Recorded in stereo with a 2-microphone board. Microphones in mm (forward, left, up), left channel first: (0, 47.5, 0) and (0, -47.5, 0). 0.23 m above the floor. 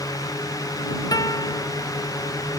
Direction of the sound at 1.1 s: 40° left (ahead or behind).